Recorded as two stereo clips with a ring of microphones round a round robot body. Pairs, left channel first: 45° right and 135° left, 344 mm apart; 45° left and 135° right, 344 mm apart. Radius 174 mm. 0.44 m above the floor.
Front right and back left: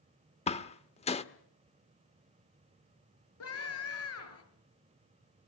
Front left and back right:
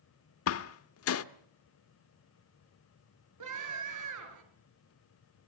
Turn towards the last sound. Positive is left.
turn(degrees=-95)